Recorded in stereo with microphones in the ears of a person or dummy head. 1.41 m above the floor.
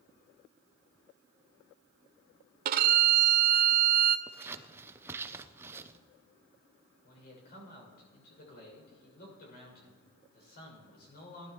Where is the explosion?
No explosion in this recording.